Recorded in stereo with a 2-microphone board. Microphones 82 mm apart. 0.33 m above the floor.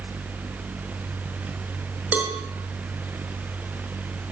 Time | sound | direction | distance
2.1 | a cowbell | 20° right (ahead or behind) | 4.5 m